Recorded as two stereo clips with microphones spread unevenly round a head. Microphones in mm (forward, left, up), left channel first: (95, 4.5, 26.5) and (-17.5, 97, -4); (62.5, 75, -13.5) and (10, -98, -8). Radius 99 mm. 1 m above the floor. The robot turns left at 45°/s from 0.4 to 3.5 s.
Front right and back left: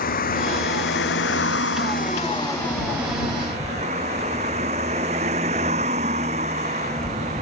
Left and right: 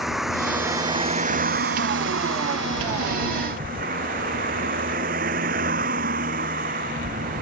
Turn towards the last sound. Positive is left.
turn(degrees=-160)